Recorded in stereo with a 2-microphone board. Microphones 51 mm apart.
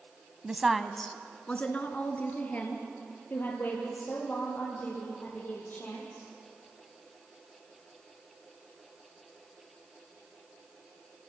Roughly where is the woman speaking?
Centre.